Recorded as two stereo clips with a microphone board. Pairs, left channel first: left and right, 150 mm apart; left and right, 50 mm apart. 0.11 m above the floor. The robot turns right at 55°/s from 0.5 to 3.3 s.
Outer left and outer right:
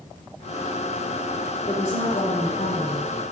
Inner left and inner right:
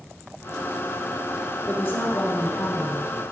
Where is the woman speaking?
35° left, 3.5 m; by 3.1 s 115° left, 3.5 m.